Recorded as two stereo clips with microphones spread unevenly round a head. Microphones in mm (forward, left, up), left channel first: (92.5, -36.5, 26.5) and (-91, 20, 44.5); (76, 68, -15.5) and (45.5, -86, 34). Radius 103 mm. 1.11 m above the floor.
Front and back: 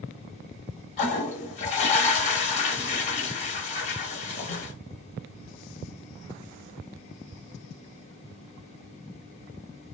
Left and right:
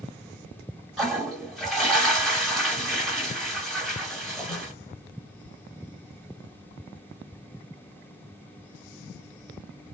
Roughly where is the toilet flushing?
Ahead right.